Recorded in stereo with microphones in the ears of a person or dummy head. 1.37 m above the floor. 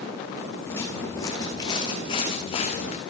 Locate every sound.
0.7 s footsteps: 15° left (ahead or behind), 5 m; by 3.0 s 40° left (ahead or behind), 5.5 m